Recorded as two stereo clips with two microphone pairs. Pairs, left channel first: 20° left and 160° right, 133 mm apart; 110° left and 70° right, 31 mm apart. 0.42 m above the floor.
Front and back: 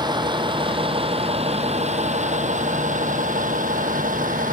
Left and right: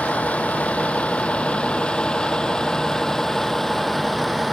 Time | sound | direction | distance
0.0 | a vehicle | 140° left | ?